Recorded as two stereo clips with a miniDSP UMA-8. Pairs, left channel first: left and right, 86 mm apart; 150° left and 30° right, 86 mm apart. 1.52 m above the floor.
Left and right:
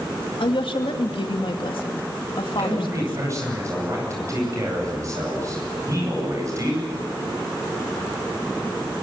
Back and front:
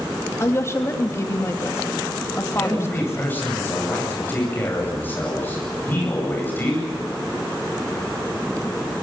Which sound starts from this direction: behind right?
A man speaking, at 2.6 s.